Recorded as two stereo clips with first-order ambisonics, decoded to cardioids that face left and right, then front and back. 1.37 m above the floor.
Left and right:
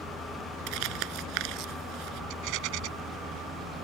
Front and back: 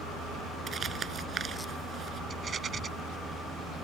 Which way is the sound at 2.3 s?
115° right.